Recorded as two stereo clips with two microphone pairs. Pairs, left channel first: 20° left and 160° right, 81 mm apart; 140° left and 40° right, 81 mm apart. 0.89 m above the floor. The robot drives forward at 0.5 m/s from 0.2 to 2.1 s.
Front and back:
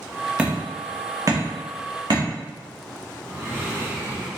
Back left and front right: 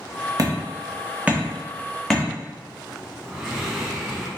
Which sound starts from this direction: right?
Hammering, at 0.4 s.